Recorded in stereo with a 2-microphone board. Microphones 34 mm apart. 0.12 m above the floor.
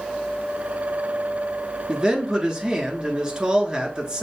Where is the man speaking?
20° right (ahead or behind), 1.2 m.